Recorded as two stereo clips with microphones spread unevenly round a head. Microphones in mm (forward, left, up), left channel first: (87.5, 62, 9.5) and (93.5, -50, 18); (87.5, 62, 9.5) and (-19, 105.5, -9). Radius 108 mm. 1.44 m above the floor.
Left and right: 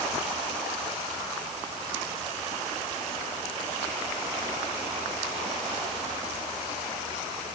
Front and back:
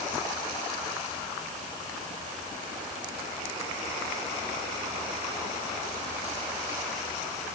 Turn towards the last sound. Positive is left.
No sound to turn to.